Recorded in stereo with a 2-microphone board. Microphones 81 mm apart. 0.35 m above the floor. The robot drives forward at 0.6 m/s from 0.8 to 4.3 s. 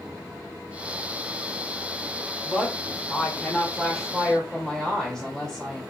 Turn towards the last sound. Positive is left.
turn(degrees=10)  # may be behind; listen again after turning